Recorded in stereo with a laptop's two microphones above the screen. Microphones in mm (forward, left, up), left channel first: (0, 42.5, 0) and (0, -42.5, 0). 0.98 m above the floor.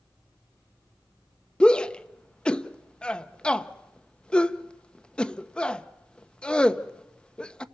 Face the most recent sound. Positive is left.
turn(degrees=10)  # may be behind; listen again after turning